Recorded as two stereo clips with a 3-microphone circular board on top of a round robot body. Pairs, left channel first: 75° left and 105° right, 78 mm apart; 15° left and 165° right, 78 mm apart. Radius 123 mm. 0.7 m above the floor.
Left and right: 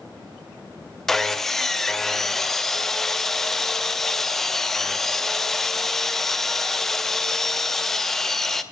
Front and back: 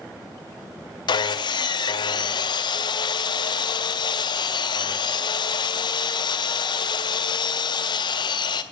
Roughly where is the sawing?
Ahead.